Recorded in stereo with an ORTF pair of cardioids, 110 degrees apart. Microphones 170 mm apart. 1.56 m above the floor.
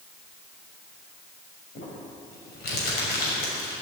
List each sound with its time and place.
1.8 s crumpling: 70° left, 6 m